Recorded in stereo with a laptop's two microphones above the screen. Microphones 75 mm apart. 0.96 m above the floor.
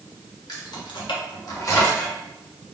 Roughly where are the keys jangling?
Left.